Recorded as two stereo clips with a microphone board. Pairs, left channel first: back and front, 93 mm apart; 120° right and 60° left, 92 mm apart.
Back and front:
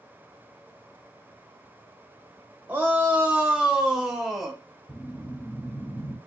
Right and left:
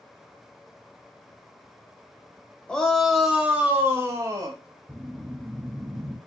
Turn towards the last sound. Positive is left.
turn(degrees=130)